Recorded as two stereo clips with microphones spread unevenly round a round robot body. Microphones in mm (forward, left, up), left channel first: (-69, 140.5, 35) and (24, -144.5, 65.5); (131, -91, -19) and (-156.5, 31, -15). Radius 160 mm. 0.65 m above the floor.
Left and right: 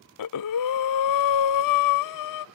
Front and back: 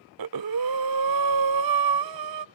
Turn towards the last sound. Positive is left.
turn(degrees=130)